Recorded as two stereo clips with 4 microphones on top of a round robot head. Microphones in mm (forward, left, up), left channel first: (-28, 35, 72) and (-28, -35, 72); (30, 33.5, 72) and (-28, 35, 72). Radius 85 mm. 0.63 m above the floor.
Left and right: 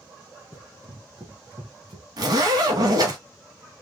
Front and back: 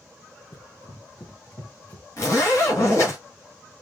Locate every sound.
0.5 s running footsteps: 25° right, 2.0 m; by 2.1 s 70° right, 2.5 m
2.2 s a zipper: 50° right, 1.9 m